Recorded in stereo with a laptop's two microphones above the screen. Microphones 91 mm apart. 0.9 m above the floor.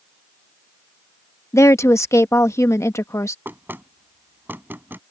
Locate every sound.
1.5 s a woman speaking: 35° left (ahead or behind)
3.5 s knocking: 20° right (ahead or behind)